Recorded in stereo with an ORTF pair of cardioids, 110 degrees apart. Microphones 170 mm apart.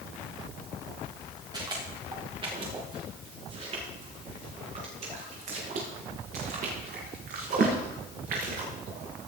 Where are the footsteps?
25° right, 6 m; by 9.3 s 65° right, 6.5 m.